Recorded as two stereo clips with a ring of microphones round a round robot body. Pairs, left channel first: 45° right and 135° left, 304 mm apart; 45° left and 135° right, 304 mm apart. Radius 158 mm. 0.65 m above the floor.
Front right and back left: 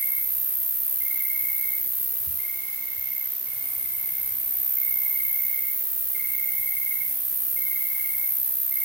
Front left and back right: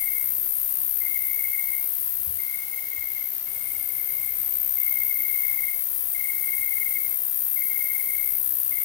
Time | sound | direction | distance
0.0 | an insect | 50° left | 5 m